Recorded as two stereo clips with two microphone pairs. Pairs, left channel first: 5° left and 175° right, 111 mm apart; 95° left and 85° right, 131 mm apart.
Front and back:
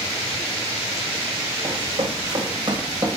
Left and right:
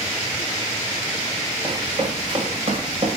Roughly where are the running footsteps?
Behind right.